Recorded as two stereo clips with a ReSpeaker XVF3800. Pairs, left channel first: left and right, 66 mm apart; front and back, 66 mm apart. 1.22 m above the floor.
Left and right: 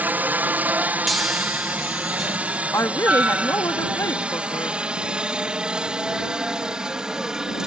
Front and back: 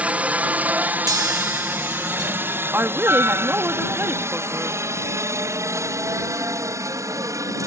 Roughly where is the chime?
Behind.